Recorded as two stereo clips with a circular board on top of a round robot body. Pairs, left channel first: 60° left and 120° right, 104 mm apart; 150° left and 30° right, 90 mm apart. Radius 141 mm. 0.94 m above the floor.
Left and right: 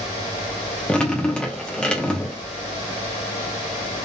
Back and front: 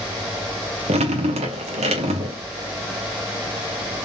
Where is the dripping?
25° right, 0.9 m.